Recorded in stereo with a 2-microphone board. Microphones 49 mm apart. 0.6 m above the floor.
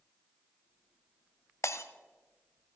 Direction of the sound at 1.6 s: 70° left (ahead or behind).